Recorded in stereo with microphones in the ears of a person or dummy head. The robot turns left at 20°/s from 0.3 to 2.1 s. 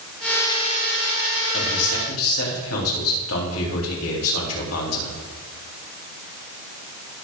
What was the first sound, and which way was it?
A man speaking, 80° left.